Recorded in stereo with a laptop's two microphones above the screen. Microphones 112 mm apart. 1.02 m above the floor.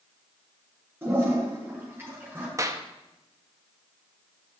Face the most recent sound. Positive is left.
turn(degrees=-30)  # may be behind; listen again after turning